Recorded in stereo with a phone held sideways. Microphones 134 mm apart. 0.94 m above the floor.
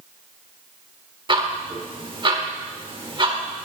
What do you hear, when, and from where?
1.3 s ticking: 35° right (ahead or behind), 1.3 m